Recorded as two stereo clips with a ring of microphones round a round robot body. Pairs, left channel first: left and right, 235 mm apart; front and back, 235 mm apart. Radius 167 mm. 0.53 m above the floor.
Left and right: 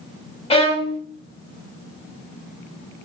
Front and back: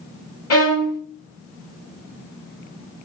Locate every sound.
0.5 s a violin: 20° left, 1.2 m